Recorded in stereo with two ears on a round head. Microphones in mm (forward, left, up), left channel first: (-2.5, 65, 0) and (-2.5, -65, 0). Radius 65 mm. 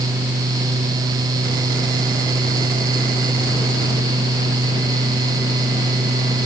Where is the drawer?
I don't hear a drawer.